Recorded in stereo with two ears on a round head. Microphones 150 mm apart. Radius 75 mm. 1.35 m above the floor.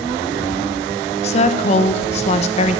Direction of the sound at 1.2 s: 40° left (ahead or behind).